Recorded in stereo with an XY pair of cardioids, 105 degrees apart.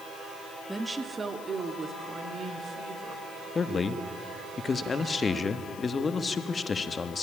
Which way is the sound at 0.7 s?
5° right.